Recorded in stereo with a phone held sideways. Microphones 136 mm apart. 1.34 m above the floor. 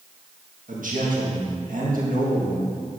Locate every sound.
0.7 s a man speaking: 80° right, 1.7 m